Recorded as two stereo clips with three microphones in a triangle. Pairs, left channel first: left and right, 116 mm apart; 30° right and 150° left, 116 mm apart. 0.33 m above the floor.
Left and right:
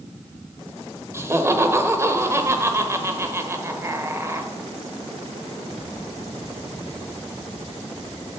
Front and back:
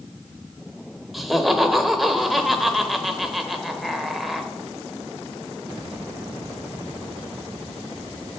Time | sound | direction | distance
1.1 | laughter | 125° right | 1.0 m